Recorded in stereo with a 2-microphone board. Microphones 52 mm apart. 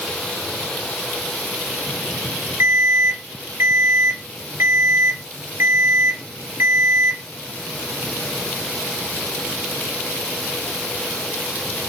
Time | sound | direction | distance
2.6 | an alarm | 55° right (ahead or behind) | 8 m